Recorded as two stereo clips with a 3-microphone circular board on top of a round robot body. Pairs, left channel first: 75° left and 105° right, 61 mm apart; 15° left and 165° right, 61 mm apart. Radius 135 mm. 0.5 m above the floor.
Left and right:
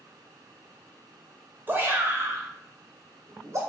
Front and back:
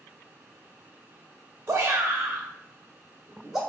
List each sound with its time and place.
1.7 s a shout: 140° right, 1.0 m; by 3.6 s 85° right, 1.4 m